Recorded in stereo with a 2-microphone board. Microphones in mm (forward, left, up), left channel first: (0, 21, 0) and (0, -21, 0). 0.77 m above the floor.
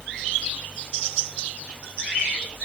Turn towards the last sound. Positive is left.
No sound to turn to.